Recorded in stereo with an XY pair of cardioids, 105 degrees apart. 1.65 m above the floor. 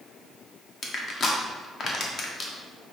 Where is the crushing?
50° left, 0.9 m.